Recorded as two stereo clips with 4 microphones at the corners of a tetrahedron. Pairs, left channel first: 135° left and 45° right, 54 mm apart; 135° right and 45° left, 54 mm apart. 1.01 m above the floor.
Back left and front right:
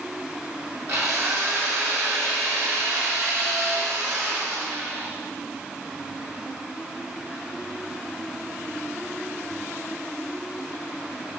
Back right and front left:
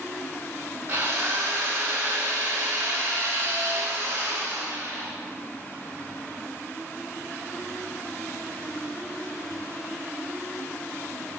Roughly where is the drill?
Ahead.